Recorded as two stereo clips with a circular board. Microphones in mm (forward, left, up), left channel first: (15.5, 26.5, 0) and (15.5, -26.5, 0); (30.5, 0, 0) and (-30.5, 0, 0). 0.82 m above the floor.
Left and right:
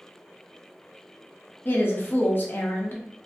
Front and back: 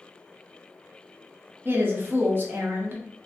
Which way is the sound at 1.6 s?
130° left.